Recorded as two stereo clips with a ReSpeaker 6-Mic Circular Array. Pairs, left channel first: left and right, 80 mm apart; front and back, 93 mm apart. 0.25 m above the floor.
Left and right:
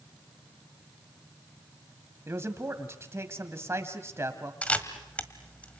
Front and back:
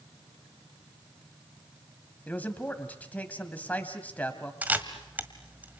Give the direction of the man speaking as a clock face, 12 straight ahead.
2 o'clock.